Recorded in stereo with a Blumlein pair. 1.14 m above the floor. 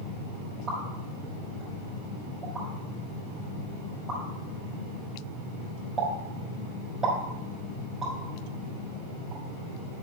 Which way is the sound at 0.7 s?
15° right.